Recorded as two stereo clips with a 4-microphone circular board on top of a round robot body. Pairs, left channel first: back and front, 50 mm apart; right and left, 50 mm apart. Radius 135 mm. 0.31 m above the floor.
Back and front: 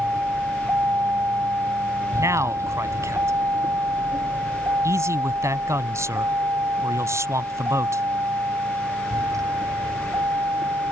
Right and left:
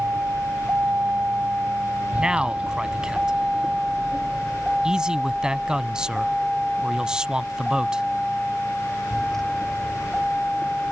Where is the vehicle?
45° left; by 10.9 s 5° right.